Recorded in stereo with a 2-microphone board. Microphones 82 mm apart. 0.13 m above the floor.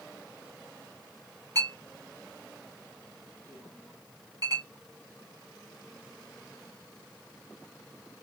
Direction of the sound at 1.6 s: 50° right (ahead or behind).